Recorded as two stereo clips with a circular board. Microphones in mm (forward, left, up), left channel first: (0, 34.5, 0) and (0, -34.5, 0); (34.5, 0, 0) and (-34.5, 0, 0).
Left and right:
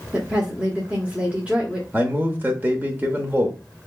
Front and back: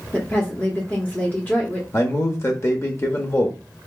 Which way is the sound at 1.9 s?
35° right.